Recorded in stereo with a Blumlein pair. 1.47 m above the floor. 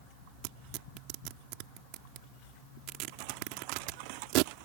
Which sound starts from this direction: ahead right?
Tearing paper, at 0.4 s.